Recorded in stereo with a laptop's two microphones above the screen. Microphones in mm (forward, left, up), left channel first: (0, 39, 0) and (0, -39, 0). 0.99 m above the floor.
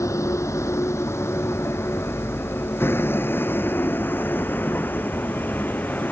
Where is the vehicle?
40° left (ahead or behind); by 6.1 s 25° left (ahead or behind).